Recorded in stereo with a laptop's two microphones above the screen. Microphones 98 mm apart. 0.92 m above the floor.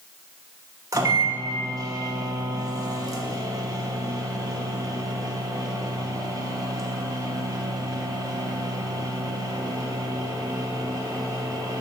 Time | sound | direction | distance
0.9 | a microwave | 35° right (ahead or behind) | 0.9 m